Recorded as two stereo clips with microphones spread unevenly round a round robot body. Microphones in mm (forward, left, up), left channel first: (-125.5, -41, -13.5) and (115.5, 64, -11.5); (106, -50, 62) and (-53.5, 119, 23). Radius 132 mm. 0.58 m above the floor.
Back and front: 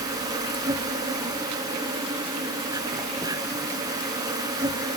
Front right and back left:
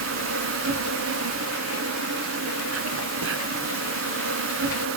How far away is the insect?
About 1.1 m.